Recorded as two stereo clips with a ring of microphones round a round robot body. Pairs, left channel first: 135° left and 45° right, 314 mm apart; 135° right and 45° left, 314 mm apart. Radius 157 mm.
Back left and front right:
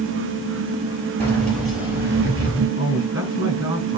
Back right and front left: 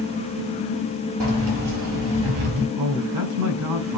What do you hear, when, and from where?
1.2 s keys jangling: 50° left, 5 m; by 2.7 s 30° left, 5.5 m
2.8 s a man speaking: 30° left, 4.5 m